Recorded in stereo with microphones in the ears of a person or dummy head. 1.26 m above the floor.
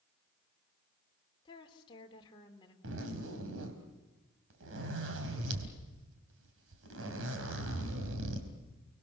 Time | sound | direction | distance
1.4 | a woman speaking | 20° left (ahead or behind) | 3 m
2.8 | a zipper | 70° right (ahead or behind) | 3.5 m